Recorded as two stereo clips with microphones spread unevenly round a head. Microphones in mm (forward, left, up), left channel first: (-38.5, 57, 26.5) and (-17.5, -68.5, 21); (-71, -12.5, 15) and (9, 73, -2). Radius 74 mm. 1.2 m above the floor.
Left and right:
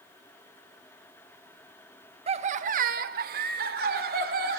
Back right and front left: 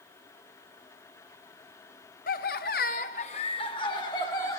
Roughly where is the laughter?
Behind right.